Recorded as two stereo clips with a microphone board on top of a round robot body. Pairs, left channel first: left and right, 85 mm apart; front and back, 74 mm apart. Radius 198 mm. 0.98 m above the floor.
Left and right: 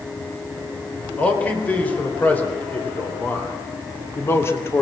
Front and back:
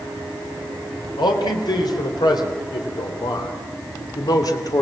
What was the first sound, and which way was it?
A man speaking, 15° left.